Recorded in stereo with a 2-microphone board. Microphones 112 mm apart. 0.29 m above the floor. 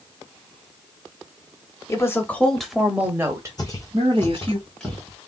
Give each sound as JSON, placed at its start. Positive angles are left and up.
{"t": 1.9, "sound": "a woman speaking", "side_deg": 25, "distance_m": 1.1}
{"t": 3.6, "sound": "footsteps", "side_deg": 35, "distance_m": 1.3}